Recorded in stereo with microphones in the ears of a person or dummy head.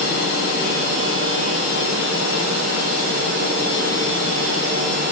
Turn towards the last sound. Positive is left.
No sound to turn to.